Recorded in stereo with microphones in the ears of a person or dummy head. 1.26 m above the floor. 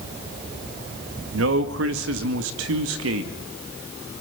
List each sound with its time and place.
1.3 s a man speaking: 70° right (ahead or behind), 1.7 m